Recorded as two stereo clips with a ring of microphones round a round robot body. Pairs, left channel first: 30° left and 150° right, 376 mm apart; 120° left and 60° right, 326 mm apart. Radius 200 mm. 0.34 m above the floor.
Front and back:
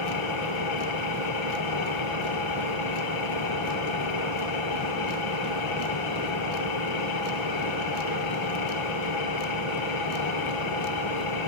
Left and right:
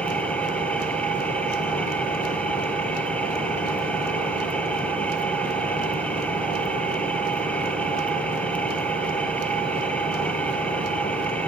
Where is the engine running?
35° left, 2.5 m.